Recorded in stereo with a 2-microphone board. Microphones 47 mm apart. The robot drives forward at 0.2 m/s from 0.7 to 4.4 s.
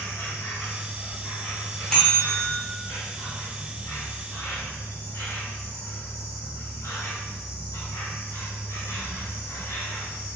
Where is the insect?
60° left (ahead or behind), 1.6 m; by 10.4 s 70° left (ahead or behind), 1.5 m.